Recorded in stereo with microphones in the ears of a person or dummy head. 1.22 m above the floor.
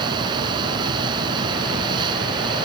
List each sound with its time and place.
0.0 s a fan: 30° right (ahead or behind)